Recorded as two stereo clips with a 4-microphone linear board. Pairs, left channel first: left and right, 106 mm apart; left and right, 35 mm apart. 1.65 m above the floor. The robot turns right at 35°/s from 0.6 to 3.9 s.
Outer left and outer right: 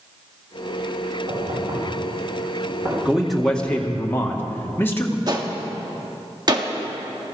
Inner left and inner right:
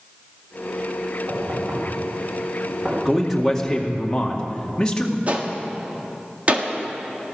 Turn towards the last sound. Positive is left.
turn(degrees=-40)  # may be behind; listen again after turning